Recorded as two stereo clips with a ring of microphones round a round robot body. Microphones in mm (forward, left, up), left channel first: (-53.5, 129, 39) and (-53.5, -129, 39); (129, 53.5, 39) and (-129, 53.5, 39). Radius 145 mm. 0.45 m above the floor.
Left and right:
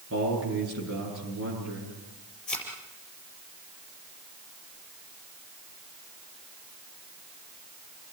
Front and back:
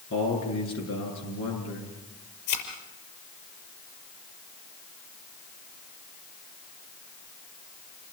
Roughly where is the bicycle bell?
I don't hear a bicycle bell.